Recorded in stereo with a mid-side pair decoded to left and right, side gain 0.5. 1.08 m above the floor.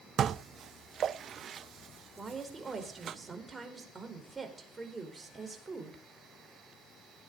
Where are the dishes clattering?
50° right, 0.6 m.